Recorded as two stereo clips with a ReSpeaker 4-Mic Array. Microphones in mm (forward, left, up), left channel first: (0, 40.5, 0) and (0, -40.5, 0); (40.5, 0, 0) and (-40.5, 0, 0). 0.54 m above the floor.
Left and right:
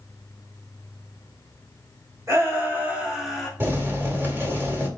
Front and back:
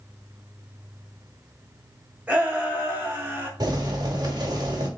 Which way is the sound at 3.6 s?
150° right.